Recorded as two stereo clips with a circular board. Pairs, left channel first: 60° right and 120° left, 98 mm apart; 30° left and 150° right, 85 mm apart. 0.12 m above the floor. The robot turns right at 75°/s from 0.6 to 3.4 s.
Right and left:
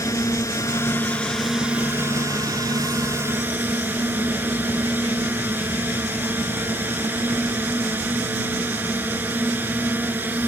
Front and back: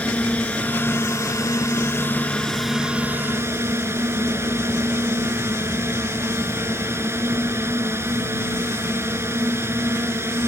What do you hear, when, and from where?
0.0 s a drone: 35° right; by 10.5 s 175° left